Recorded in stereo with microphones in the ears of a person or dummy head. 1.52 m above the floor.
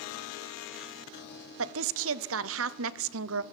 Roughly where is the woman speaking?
Right.